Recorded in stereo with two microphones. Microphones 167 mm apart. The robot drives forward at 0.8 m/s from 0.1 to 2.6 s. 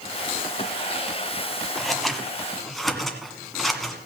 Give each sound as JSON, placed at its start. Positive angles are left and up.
{"t": 1.8, "sound": "scissors", "side_deg": 0, "distance_m": 1.1}